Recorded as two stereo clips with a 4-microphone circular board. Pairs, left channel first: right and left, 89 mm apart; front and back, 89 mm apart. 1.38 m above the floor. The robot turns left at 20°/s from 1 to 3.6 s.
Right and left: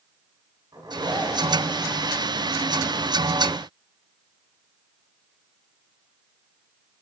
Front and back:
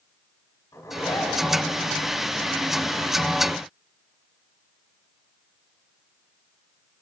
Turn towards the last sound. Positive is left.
turn(degrees=0)